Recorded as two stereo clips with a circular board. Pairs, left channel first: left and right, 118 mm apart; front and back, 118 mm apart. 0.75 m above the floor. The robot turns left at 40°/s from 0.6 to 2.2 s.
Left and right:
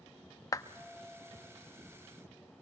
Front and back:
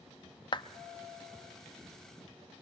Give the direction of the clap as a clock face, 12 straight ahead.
11 o'clock.